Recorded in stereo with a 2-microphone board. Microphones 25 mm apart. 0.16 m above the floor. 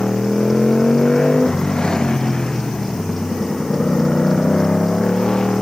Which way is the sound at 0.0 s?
35° left (ahead or behind).